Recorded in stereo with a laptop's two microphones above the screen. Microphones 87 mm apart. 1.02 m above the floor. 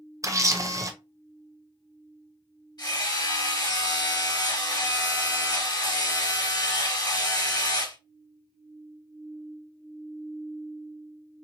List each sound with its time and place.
0.2 s a camera shutter: 35° right (ahead or behind), 0.5 m
2.8 s hammering: 55° left (ahead or behind), 2.5 m